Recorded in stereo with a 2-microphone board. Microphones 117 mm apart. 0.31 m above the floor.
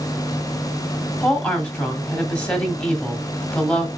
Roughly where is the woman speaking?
Centre.